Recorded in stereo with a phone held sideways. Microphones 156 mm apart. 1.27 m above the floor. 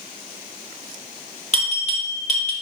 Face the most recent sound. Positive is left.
turn(degrees=45)  # may be behind; listen again after turning